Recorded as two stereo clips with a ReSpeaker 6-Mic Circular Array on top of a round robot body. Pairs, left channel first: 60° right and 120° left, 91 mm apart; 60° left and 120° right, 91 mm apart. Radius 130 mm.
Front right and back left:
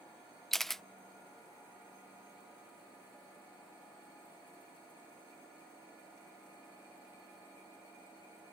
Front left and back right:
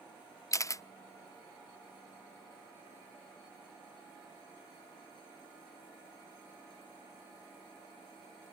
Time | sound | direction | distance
0.5 | a camera shutter | 25° left | ?